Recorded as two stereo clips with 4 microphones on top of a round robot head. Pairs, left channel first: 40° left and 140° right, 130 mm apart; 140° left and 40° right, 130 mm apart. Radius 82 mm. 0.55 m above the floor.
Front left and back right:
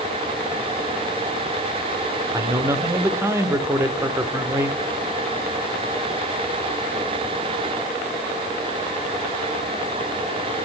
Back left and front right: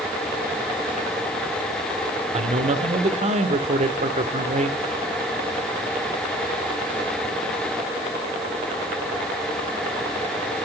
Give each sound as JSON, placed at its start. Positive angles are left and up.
{"t": 2.3, "sound": "a man speaking", "azimuth_deg": -70, "distance_m": 1.5}